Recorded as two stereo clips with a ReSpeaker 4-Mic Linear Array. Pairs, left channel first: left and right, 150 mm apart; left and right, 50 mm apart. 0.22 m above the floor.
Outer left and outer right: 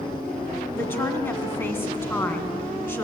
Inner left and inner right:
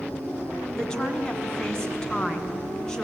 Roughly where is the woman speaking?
Centre.